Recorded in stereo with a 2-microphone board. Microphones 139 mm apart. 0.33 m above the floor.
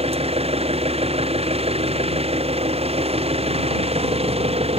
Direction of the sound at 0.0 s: 45° right (ahead or behind).